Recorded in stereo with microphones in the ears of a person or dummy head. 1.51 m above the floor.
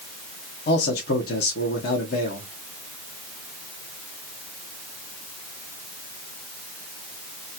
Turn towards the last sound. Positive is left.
turn(degrees=60)  # may be behind; listen again after turning